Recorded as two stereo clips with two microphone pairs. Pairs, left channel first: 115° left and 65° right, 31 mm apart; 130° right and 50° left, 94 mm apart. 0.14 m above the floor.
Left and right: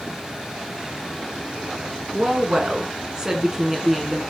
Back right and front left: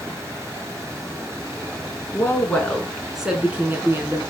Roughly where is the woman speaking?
Right.